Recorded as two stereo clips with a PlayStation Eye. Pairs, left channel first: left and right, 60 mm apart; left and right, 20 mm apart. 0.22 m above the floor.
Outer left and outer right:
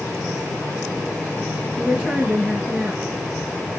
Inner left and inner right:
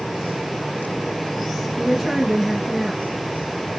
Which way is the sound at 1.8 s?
10° left (ahead or behind).